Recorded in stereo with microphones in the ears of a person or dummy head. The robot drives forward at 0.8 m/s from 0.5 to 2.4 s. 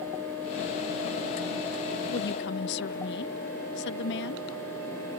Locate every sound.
2.1 s a woman speaking: 55° left (ahead or behind); by 4.5 s 60° left (ahead or behind)